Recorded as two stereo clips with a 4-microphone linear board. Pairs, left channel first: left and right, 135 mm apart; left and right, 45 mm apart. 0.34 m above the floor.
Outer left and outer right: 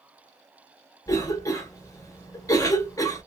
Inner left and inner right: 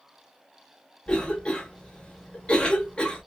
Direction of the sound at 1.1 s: 25° left (ahead or behind).